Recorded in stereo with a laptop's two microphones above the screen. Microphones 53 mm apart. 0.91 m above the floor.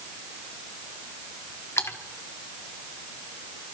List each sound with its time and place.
1.8 s a splash: 60° left (ahead or behind), 1.8 m